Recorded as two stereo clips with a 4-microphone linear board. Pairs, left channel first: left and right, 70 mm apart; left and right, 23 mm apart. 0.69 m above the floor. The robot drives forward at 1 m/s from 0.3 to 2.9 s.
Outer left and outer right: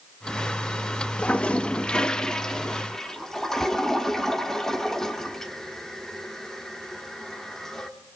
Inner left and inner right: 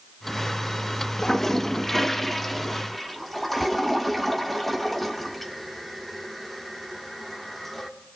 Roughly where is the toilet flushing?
Centre.